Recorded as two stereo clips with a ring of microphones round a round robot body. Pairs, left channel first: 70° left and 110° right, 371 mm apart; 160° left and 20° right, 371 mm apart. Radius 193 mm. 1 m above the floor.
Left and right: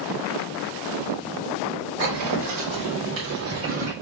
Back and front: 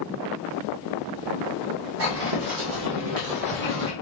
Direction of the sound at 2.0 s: 75° right.